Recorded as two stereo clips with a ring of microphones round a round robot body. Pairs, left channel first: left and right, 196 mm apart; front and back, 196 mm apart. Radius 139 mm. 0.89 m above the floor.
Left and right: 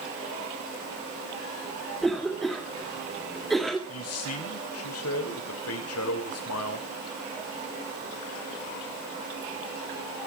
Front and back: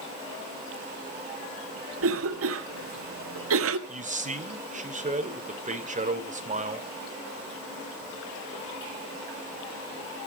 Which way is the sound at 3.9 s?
125° left.